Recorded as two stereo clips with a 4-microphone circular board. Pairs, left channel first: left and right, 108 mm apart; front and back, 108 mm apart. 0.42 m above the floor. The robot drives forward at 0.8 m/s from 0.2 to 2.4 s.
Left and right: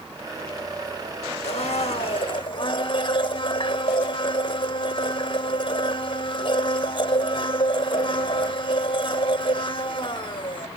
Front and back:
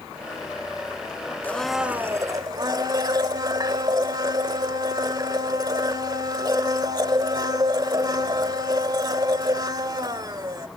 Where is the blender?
75° left, 0.7 m; by 10.7 s 130° left, 0.9 m.